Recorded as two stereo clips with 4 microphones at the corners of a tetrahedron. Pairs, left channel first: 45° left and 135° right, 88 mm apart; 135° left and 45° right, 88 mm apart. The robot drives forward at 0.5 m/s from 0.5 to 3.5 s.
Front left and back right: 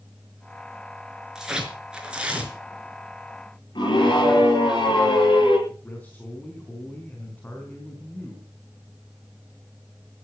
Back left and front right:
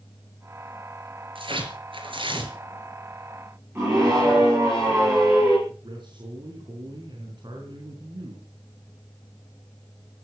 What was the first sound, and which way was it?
Tearing paper, 50° right.